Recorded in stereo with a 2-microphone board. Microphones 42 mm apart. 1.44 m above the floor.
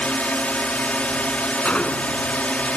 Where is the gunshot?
30° left (ahead or behind).